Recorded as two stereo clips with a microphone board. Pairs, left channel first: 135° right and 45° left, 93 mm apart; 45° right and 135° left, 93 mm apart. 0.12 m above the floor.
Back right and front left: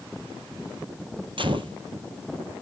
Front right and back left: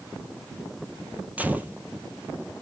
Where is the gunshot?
65° left, 0.7 m.